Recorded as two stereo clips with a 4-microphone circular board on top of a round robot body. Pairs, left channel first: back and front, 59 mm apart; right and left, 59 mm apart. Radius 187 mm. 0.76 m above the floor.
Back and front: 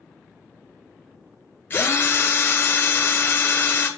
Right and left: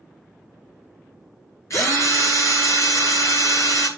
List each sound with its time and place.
1.7 s a drill: 125° right, 1.7 m